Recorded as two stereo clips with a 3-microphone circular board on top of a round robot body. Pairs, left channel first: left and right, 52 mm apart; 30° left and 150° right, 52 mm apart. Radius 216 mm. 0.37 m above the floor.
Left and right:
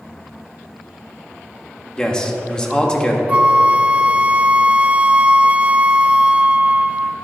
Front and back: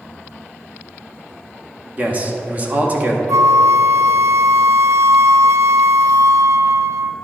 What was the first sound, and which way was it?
A man speaking, 160° left.